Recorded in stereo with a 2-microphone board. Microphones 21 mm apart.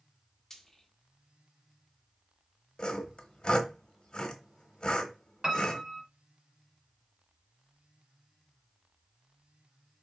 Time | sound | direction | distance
0.5 | frying | 10° left (ahead or behind) | 1.4 m
2.8 | sawing | 40° left (ahead or behind) | 1.0 m
5.4 | a piano | 30° right (ahead or behind) | 1.2 m